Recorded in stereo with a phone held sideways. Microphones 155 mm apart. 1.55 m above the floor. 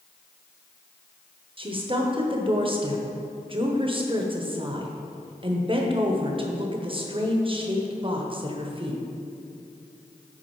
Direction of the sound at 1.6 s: 35° right (ahead or behind).